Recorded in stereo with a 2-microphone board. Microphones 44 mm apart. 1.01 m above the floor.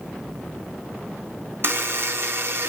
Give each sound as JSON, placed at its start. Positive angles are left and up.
{"t": 1.6, "sound": "a buzzer", "side_deg": -55, "distance_m": 0.8}